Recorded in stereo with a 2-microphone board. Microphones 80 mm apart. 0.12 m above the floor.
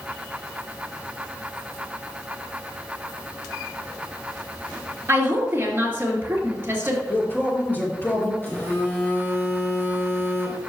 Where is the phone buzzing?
25° left (ahead or behind), 3 m.